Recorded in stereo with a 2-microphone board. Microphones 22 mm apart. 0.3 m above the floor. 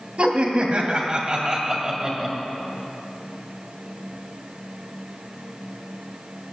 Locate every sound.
0.2 s laughter: 55° right (ahead or behind), 2.5 m; by 2.4 s 15° right (ahead or behind), 1.8 m